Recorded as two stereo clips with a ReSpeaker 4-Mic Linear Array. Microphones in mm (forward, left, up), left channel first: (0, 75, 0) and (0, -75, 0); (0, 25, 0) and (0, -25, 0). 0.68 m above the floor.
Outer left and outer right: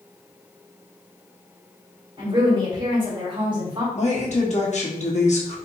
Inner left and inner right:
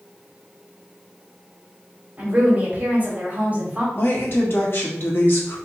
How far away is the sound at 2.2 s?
About 2 m.